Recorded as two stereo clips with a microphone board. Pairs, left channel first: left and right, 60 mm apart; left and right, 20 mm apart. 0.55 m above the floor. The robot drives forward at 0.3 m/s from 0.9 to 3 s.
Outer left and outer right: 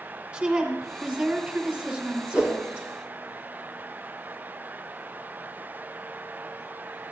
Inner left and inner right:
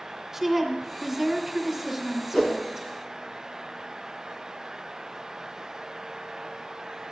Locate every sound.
0.3 s a woman speaking: 25° right (ahead or behind), 3.5 m; by 2.9 s 30° right (ahead or behind), 3 m
2.3 s a whoosh: 20° right (ahead or behind), 3 m